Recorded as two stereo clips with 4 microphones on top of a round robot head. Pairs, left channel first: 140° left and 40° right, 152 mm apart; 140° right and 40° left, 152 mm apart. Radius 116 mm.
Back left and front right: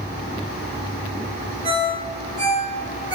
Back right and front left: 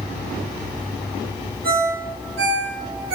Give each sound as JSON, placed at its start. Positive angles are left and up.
{"t": 1.6, "sound": "a ringtone", "azimuth_deg": 25, "distance_m": 3.0}